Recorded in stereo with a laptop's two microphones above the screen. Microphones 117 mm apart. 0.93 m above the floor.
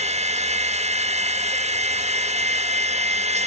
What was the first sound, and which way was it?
A machine running, 70° right (ahead or behind).